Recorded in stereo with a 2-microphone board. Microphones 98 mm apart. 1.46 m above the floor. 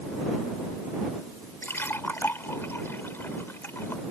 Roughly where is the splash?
Left.